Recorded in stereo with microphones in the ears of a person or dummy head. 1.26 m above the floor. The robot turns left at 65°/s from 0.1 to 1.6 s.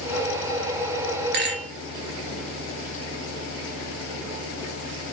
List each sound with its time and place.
1.3 s a rattle: 55° right (ahead or behind), 0.7 m; by 1.7 s 50° right (ahead or behind), 0.7 m